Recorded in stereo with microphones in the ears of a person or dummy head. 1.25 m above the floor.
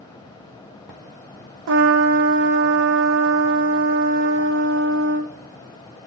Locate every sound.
1.7 s a trumpet: 65° right (ahead or behind), 0.6 m